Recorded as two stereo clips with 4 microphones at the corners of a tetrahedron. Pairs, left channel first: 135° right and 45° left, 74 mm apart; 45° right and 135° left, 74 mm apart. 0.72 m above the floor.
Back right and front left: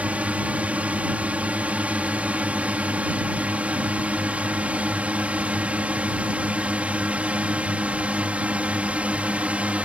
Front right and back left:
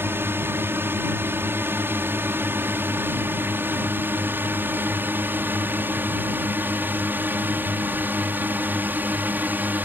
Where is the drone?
105° left; by 9.8 s 100° left.